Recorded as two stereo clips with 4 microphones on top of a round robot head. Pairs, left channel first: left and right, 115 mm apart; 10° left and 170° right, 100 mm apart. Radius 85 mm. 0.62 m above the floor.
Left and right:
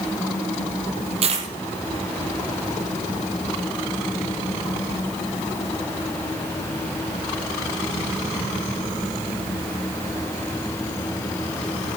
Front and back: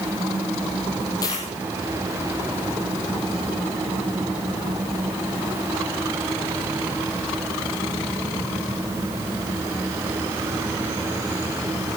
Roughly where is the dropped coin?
Ahead right.